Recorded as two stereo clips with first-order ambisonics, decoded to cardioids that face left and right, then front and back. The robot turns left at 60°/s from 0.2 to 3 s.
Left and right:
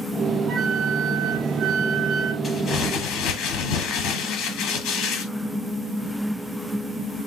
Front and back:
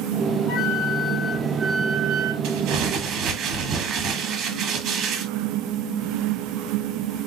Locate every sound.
0.5 s a flute: 35° right, 0.8 m; by 2.3 s 145° right, 0.8 m
2.4 s crumpling: 165° left, 1.3 m; by 5.3 s 130° left, 1.3 m